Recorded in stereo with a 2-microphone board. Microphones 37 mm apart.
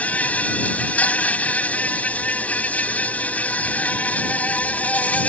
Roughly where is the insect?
Left.